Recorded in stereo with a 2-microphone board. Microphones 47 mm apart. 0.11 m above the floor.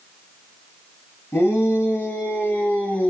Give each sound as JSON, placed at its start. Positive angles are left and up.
{"t": 1.3, "sound": "a shout", "side_deg": 55, "distance_m": 2.5}